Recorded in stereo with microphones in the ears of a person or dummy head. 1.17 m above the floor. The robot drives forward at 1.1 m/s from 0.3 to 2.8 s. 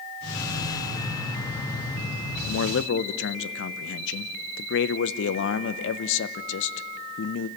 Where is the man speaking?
70° left (ahead or behind), 0.5 m; by 7.5 s 60° left (ahead or behind), 0.6 m.